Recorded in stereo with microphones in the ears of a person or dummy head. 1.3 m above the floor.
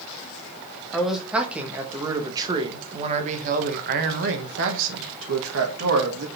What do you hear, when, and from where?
0.9 s a man speaking: centre (ahead or behind), 1.9 m; by 6.3 s 85° right, 2 m